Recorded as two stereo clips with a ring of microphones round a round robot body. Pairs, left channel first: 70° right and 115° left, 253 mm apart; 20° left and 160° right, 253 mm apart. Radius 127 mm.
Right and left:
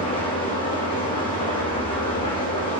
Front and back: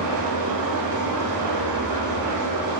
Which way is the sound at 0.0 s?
140° right.